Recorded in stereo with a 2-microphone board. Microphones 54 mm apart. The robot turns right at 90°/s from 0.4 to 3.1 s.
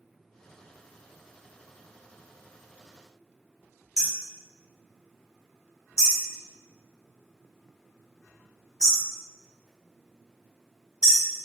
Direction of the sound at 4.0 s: 15° right (ahead or behind).